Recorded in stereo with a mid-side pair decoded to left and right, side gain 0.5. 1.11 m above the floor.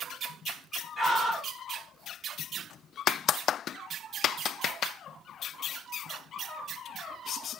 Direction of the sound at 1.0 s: 15° right.